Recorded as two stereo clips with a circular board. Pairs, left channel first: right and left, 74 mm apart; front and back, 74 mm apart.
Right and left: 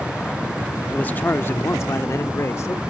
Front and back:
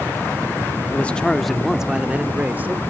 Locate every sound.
0.9 s a man speaking: 40° right; by 2.8 s 125° right